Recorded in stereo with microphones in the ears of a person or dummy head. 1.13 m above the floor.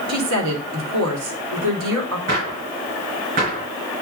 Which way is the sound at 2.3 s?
40° right (ahead or behind).